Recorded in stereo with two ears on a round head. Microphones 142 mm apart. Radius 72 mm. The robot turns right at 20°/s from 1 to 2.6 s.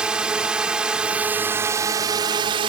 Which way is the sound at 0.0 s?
175° right.